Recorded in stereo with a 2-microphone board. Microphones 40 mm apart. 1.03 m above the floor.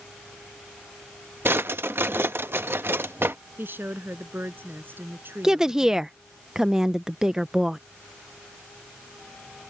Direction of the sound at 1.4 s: 70° right (ahead or behind).